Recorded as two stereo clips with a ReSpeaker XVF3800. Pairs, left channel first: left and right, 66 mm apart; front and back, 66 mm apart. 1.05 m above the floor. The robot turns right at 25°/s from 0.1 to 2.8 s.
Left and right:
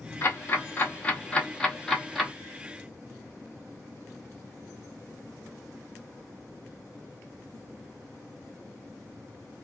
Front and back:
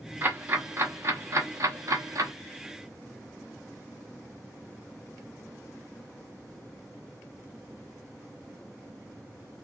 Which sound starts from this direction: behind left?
Ticking, at 0.2 s.